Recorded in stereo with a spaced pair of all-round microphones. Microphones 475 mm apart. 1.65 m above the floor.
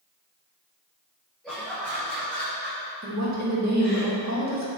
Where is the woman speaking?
35° right (ahead or behind), 2.0 m.